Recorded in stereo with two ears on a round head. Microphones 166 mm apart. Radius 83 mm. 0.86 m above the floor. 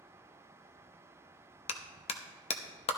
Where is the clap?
35° left (ahead or behind), 0.9 m.